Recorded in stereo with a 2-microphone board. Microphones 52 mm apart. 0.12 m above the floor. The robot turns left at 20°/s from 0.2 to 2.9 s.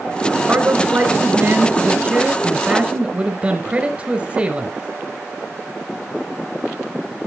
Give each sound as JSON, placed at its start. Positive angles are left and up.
{"t": 0.5, "sound": "a man speaking", "azimuth_deg": -90, "distance_m": 1.5}